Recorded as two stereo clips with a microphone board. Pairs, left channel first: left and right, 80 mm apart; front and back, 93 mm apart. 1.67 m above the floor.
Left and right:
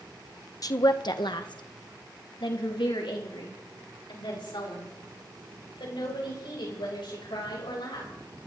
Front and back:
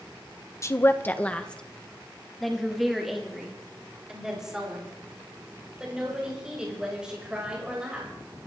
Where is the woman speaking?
55° left, 1.0 m; by 8.1 s 100° left, 7.5 m.